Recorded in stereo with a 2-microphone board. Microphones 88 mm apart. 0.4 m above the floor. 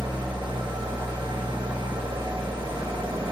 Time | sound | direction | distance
0.0 | an engine running | 70° right (ahead or behind) | 1.1 m